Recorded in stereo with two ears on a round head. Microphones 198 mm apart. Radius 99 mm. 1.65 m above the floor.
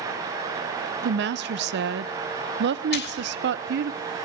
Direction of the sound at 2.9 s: 50° left (ahead or behind).